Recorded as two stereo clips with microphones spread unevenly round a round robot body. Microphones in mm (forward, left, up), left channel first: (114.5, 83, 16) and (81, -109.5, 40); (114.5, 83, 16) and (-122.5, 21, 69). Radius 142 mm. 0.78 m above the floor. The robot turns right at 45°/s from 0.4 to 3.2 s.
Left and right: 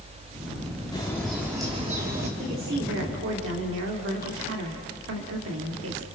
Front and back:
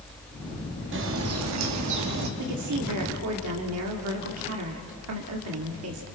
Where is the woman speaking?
165° right, 2 m; by 6.0 s 125° right, 2 m.